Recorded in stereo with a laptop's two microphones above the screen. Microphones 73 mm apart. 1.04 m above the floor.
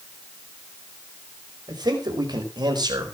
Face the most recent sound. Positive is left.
turn(degrees=-70)  # may be behind; listen again after turning